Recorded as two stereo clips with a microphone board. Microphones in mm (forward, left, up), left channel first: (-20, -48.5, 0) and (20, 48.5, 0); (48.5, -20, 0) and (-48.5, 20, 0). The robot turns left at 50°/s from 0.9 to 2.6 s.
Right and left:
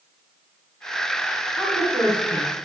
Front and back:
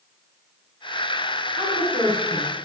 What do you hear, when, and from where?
1.5 s a woman speaking: 35° right, 4 m; by 2.5 s 85° right, 4 m